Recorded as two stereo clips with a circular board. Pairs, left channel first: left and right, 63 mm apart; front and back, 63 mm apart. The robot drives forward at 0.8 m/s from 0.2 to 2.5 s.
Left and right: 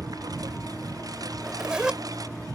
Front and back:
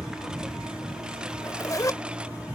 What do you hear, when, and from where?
0.0 s a lawn mower: 100° right; by 2.6 s 105° right
1.3 s a zipper: 10° right; by 2.0 s 15° right